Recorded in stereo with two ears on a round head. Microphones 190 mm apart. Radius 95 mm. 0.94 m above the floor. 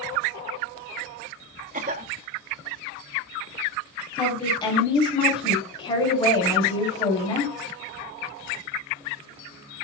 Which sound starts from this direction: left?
A woman speaking, at 4.2 s.